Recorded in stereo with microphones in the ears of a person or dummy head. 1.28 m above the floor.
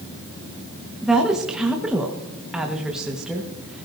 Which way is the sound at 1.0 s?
5° right (ahead or behind).